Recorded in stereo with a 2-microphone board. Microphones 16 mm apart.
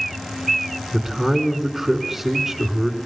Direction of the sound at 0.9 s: 5° right (ahead or behind).